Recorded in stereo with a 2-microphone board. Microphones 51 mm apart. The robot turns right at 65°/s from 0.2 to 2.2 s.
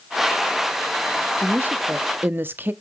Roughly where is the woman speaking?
Behind right.